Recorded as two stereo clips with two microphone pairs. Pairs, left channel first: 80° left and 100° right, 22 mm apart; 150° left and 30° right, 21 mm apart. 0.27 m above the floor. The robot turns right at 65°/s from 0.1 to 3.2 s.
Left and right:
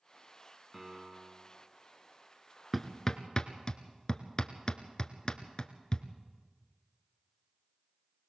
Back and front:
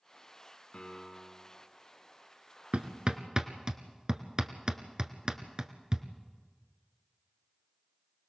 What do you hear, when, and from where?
0.7 s a piano: 170° left, 2 m; by 1.5 s 140° right, 2 m
2.7 s hammering: 10° right, 1.2 m; by 6.0 s 20° left, 1.2 m